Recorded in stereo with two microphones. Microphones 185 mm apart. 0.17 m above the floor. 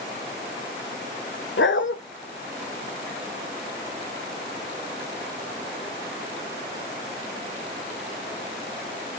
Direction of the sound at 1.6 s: 75° left (ahead or behind).